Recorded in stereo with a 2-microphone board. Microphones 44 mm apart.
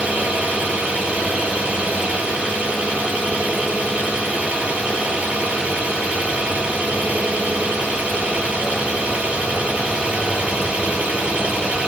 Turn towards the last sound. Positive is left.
turn(degrees=-30)  # may be behind; listen again after turning